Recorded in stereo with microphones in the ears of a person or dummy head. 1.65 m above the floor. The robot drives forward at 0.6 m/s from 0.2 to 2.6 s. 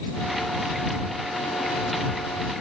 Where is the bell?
I don't hear a bell.